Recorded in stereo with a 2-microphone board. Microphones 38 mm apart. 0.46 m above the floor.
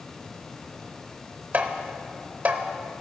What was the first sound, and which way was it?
Tapping, 50° right (ahead or behind).